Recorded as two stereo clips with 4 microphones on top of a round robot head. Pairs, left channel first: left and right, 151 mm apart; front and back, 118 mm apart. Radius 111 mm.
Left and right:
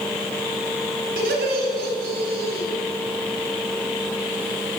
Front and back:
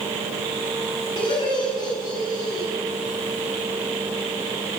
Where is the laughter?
65° right, 5.5 m; by 2.7 s 70° right, 4.5 m.